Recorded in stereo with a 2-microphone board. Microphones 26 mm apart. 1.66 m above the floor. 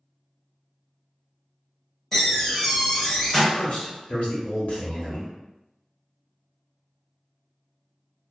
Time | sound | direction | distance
2.1 | a door slam | 15° left (ahead or behind) | 0.9 m
3.5 | a man speaking | 65° left (ahead or behind) | 0.8 m